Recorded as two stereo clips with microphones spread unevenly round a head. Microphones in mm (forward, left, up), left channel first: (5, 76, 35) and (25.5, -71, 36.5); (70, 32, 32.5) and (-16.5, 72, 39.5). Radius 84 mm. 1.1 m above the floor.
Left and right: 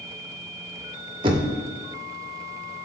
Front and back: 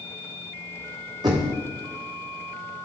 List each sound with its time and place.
1.2 s knocking: 140° right, 0.6 m